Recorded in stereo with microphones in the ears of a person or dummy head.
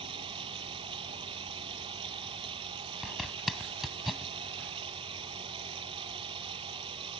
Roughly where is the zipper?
Centre.